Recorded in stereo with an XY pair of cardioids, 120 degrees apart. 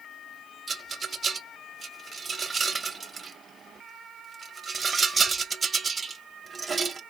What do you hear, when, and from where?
0.7 s a rattle: 30° right, 0.7 m